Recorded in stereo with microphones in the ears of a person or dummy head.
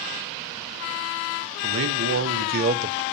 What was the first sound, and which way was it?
A man speaking, 70° right (ahead or behind).